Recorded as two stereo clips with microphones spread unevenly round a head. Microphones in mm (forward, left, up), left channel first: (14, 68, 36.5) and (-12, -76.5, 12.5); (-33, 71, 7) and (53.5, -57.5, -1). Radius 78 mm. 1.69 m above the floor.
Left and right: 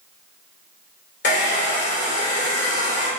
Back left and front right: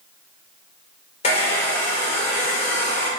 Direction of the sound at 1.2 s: 80° left.